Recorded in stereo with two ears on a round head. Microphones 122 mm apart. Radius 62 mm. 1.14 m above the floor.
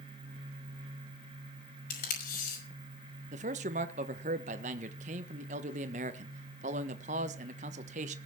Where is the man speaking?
60° right (ahead or behind), 1.2 m.